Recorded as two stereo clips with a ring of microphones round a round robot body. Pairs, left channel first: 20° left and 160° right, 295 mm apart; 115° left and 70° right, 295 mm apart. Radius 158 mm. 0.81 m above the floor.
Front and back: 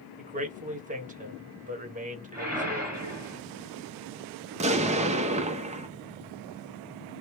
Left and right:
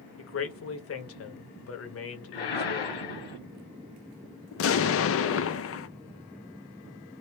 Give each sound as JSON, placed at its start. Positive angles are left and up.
{"t": 0.2, "sound": "a man speaking", "azimuth_deg": 145, "distance_m": 1.2}
{"t": 2.3, "sound": "a whoosh", "azimuth_deg": 120, "distance_m": 2.0}
{"t": 4.5, "sound": "an explosion", "azimuth_deg": 140, "distance_m": 0.6}